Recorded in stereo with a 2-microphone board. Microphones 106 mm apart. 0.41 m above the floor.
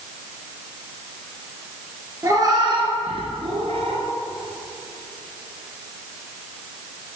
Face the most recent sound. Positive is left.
turn(degrees=-80)